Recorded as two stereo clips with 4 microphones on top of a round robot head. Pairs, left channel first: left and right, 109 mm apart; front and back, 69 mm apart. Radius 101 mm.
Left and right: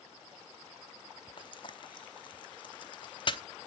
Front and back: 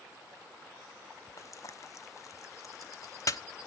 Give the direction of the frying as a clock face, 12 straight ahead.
11 o'clock.